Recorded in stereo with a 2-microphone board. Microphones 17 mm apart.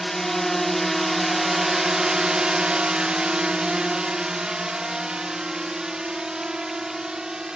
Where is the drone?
15° left (ahead or behind); by 7.6 s 45° right (ahead or behind).